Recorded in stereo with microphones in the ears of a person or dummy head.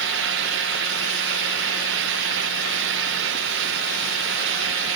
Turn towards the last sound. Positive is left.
No sound to turn to.